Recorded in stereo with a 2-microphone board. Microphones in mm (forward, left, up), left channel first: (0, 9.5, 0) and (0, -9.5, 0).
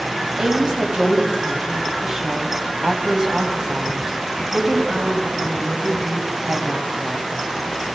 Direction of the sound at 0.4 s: 35° right (ahead or behind).